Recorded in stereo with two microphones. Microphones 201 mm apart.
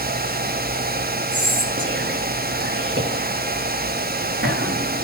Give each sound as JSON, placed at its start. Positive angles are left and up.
{"t": 1.3, "sound": "whispering", "side_deg": -65, "distance_m": 3.5}